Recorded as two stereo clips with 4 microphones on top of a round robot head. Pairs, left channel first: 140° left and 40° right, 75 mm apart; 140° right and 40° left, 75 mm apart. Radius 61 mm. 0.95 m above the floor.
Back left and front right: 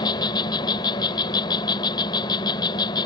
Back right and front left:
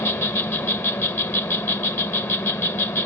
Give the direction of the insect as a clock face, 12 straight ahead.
7 o'clock.